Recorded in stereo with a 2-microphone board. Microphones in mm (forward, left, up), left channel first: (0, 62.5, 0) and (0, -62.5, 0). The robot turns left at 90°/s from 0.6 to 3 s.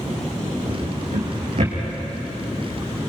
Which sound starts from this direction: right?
A drawer, at 0.7 s.